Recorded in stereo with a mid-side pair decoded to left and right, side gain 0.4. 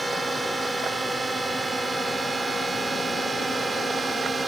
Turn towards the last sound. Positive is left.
turn(degrees=-35)